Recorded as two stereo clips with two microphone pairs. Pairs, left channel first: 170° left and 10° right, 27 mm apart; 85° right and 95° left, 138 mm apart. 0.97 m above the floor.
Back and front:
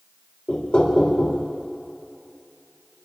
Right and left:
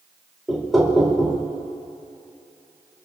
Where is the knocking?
170° right, 2.5 m.